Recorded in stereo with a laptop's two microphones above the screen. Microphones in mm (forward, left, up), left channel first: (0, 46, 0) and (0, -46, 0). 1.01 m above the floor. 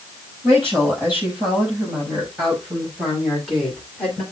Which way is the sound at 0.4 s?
25° right (ahead or behind).